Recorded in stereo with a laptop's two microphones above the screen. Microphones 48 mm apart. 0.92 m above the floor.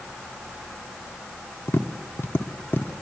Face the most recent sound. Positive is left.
turn(degrees=55)  # may be behind; listen again after turning